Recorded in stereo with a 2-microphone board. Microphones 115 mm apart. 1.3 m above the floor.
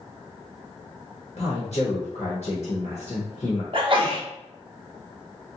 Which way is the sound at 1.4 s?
65° left (ahead or behind).